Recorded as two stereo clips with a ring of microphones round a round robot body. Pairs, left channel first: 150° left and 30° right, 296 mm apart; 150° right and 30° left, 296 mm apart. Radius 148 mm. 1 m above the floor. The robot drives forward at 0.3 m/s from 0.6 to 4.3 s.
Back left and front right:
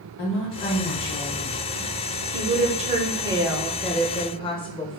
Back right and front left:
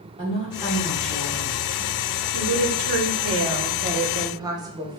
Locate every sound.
0.2 s a woman speaking: 100° left, 0.9 m; by 2.2 s 130° left, 1.1 m
2.3 s a woman speaking: 25° left, 0.8 m; by 5.0 s 95° left, 0.5 m